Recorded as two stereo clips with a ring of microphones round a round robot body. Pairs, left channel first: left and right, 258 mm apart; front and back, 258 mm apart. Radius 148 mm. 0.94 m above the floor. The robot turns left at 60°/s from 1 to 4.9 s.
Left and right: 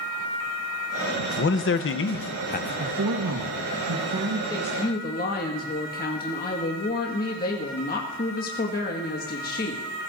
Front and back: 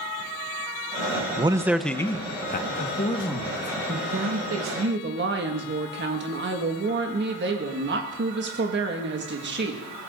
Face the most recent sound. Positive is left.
turn(degrees=140)